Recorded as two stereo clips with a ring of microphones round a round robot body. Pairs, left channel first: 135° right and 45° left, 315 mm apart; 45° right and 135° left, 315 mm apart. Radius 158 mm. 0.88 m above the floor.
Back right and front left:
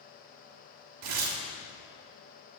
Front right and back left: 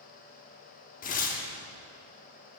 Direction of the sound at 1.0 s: 20° left.